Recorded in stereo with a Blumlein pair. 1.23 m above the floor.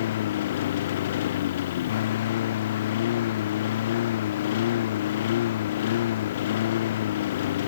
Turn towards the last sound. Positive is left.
turn(degrees=60)